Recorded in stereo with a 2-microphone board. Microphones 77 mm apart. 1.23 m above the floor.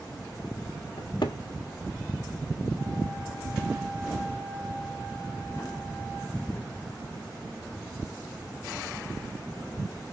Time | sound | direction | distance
1.0 | a cupboard door | 70° left (ahead or behind) | 1.6 m